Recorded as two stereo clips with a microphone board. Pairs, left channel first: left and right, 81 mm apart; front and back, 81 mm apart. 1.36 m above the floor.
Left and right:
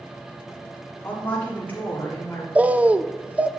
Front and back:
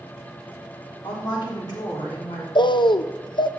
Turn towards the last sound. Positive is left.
turn(degrees=-15)